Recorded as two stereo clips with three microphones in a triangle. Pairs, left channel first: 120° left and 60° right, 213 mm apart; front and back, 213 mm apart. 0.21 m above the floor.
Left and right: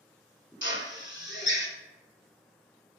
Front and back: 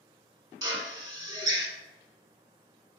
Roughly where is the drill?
Left.